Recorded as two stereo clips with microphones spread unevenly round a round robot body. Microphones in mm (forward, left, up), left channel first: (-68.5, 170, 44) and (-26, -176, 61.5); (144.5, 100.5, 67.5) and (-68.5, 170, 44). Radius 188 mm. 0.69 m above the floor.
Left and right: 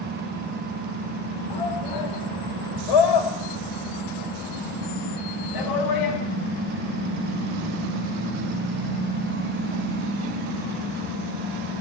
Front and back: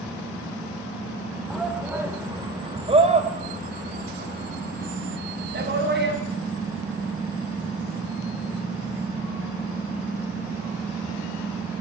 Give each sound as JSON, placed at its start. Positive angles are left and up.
{"t": 1.5, "sound": "a shout", "azimuth_deg": 70, "distance_m": 2.5}